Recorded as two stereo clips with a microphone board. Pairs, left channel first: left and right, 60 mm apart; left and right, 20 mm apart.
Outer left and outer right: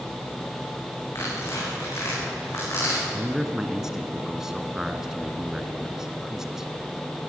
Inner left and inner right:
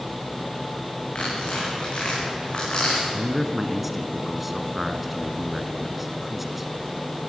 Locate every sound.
1.1 s tearing paper: 60° left (ahead or behind), 9 m
3.1 s a man speaking: 10° right (ahead or behind), 1.6 m